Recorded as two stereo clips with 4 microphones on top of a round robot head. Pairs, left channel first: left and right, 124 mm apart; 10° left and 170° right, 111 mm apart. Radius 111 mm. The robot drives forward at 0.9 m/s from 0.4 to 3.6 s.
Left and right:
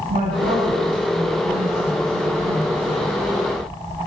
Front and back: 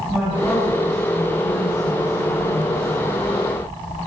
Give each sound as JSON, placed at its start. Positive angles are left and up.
{"t": 0.1, "sound": "a woman speaking", "azimuth_deg": -80, "distance_m": 9.5}